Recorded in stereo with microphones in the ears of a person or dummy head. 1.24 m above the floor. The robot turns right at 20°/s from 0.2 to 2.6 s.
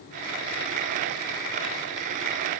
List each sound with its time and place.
Only background noise.